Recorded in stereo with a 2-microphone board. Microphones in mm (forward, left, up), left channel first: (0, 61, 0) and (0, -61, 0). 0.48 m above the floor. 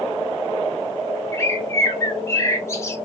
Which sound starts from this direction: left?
A bird, at 1.3 s.